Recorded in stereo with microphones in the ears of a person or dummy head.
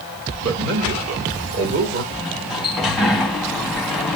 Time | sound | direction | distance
0.4 | a man speaking | 70° right (ahead or behind) | 3 m
2.1 | a sliding door | 5° left (ahead or behind) | 0.9 m